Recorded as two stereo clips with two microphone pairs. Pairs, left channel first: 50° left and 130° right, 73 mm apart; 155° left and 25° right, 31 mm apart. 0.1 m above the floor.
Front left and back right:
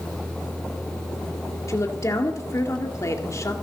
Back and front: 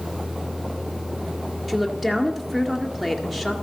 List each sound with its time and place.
1.7 s a woman speaking: 60° left, 2 m